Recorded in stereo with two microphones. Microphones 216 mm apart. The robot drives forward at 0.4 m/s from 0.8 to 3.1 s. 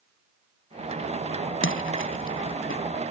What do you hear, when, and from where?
1.6 s a splash: 65° left (ahead or behind); by 2.8 s 70° left (ahead or behind)